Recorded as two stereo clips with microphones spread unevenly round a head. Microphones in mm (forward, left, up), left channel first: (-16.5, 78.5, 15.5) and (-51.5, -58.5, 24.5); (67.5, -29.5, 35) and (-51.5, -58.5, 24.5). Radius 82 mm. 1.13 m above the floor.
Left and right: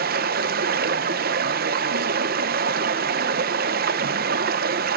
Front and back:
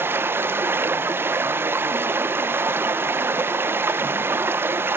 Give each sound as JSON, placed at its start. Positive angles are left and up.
{"t": 0.0, "sound": "running water", "azimuth_deg": -95, "distance_m": 0.8}